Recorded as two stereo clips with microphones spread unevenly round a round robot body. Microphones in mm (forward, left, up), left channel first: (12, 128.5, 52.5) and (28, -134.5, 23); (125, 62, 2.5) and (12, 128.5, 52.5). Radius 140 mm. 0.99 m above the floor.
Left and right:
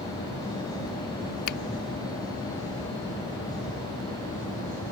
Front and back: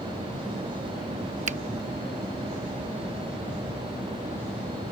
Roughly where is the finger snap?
Behind left.